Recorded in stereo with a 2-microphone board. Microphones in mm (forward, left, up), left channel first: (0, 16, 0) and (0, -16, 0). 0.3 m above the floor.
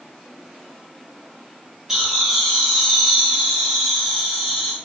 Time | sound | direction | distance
1.9 | laughter | 15° right (ahead or behind) | 1.6 m